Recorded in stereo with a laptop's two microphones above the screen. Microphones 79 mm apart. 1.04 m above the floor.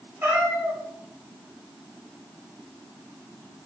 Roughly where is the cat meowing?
Right.